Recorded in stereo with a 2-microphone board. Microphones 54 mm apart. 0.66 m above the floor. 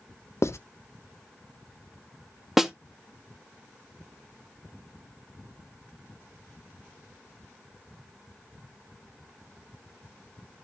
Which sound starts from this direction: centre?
A snare drum, at 2.6 s.